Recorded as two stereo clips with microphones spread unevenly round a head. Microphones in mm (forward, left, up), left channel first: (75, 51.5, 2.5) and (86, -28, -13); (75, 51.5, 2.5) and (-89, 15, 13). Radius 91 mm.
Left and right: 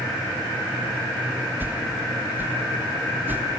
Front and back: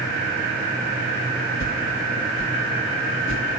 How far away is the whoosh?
About 1.5 m.